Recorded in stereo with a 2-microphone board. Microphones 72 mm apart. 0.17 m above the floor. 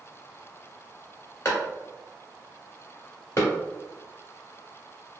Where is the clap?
40° left (ahead or behind), 1.6 m.